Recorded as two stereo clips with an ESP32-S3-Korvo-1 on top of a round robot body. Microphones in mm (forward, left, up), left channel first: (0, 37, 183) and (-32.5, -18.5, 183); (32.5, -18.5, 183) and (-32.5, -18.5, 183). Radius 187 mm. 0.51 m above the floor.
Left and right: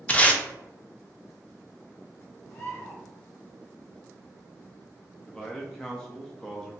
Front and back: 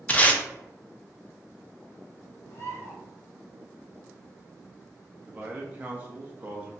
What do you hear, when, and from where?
0.1 s tape being pulled: 25° left, 0.8 m
2.5 s a bird: 20° left, 1.7 m
5.3 s a man speaking: 135° left, 0.7 m